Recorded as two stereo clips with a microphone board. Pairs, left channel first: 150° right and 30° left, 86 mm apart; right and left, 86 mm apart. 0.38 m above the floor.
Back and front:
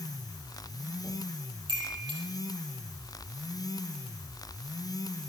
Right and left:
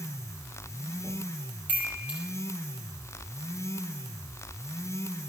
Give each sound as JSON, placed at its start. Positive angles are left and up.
{"t": 1.7, "sound": "a chime", "azimuth_deg": 20, "distance_m": 8.0}